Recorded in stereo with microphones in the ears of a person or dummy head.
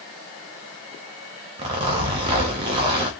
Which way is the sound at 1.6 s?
25° right (ahead or behind).